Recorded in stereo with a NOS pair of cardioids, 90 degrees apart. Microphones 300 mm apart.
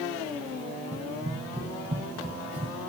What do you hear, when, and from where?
0.9 s running footsteps: 25° right, 5.5 m